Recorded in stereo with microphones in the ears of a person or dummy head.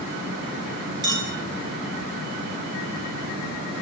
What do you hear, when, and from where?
1.0 s a clink: 25° right (ahead or behind), 5.5 m